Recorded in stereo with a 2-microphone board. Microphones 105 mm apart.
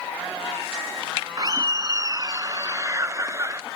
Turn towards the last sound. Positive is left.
turn(degrees=-25)  # may be behind; listen again after turning